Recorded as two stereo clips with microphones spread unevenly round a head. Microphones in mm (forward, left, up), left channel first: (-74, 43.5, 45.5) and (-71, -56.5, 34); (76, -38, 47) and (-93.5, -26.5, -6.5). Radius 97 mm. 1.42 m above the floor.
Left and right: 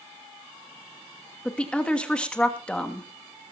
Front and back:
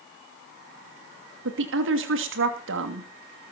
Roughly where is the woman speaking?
Behind.